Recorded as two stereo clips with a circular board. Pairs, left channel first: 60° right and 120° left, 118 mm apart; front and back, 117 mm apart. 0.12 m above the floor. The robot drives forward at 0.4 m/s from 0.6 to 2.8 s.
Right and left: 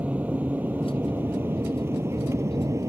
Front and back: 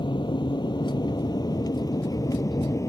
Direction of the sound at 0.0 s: 45° left.